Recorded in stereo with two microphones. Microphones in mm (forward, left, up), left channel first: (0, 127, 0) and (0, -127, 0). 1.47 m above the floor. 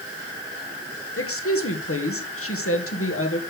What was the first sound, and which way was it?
A woman speaking, 60° left (ahead or behind).